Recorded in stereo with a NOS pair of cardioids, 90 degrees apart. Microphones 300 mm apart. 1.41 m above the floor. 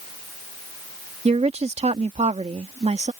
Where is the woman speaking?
20° right.